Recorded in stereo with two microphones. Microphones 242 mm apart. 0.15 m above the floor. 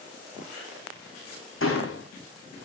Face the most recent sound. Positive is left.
turn(degrees=55)  # may be behind; listen again after turning